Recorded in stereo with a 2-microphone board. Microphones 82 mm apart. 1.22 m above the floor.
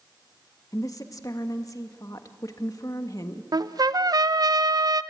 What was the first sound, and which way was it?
A woman speaking, 45° left (ahead or behind).